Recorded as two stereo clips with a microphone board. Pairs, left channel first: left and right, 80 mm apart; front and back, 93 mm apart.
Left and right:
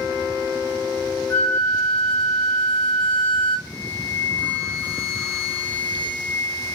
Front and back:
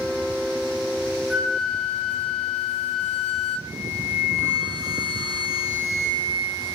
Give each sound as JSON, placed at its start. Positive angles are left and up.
{"t": 1.3, "sound": "a flute", "azimuth_deg": 90, "distance_m": 0.5}
{"t": 3.7, "sound": "a flute", "azimuth_deg": 160, "distance_m": 0.7}